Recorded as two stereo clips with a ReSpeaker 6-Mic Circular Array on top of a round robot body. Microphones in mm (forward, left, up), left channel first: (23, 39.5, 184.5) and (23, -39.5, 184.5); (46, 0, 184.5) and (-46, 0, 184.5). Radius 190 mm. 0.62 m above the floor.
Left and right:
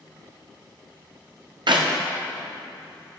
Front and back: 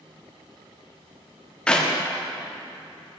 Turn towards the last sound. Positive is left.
turn(degrees=-80)